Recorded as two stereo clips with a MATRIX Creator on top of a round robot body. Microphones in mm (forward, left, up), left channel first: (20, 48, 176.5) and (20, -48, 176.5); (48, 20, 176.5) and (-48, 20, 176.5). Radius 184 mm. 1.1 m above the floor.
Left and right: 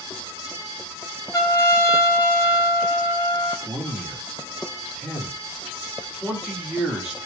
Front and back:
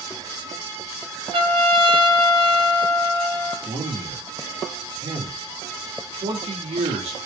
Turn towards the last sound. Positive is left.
turn(degrees=-175)